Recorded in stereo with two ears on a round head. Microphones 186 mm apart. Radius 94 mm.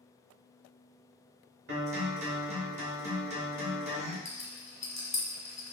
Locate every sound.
1.7 s a guitar: 55° right (ahead or behind), 1.4 m
4.2 s a rattle: 15° left (ahead or behind), 1.0 m